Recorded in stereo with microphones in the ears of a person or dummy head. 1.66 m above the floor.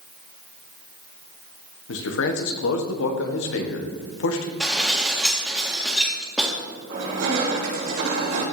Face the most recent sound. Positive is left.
turn(degrees=-75)  # may be behind; listen again after turning